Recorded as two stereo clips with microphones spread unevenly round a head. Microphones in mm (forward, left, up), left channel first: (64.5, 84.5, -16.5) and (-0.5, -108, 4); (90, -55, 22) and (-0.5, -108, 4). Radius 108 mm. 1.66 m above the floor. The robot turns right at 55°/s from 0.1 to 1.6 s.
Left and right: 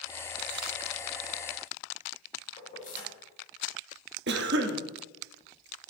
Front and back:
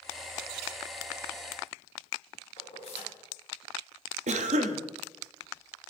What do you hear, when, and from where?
2.6 s keys jangling: 20° left, 2.5 m
4.3 s a cough: 155° right, 0.7 m